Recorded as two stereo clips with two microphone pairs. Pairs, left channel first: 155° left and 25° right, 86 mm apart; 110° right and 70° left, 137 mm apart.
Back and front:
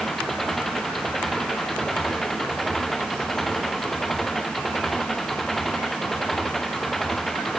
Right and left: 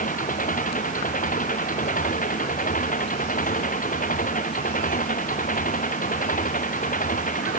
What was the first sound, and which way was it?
An engine running, 120° right.